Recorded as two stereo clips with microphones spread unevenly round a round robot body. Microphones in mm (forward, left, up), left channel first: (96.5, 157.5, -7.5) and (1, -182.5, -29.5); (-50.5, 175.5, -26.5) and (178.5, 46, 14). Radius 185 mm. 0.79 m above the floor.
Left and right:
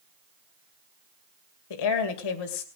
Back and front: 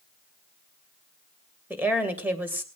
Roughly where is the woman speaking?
Ahead left.